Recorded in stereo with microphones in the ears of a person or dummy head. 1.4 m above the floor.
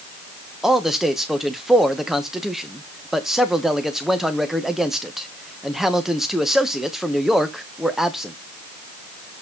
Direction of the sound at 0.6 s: 5° right (ahead or behind).